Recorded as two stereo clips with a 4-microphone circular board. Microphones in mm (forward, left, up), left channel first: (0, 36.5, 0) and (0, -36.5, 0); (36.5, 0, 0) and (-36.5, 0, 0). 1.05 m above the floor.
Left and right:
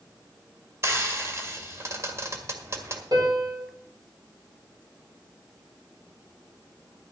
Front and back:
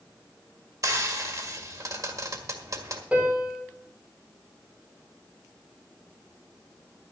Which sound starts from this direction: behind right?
Frying, at 0.8 s.